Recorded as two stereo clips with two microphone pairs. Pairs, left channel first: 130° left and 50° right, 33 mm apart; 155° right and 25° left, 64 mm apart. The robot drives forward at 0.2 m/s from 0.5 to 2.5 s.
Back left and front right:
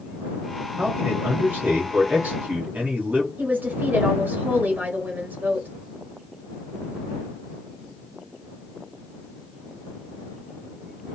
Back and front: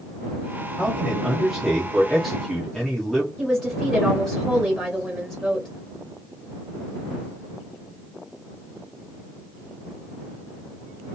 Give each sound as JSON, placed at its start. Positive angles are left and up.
{"t": 0.8, "sound": "a man speaking", "azimuth_deg": -50, "distance_m": 1.1}
{"t": 3.4, "sound": "a woman speaking", "azimuth_deg": -65, "distance_m": 0.7}